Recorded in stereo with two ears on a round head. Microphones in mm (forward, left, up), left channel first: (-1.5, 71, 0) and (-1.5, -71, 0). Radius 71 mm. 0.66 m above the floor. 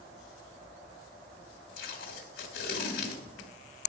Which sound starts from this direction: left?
Tape being pulled, at 1.8 s.